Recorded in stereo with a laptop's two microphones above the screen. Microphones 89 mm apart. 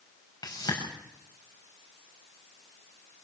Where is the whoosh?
50° left (ahead or behind), 6.5 m.